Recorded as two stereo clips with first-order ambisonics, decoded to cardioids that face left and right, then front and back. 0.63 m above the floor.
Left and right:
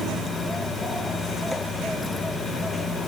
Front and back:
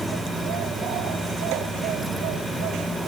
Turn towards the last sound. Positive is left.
No sound to turn to.